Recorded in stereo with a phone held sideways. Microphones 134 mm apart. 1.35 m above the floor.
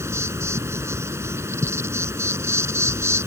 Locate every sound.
0.0 s an insect: 20° right (ahead or behind)